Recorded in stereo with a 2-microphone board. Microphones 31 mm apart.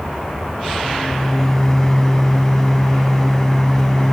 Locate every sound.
0.8 s a microwave: 20° left (ahead or behind), 1.2 m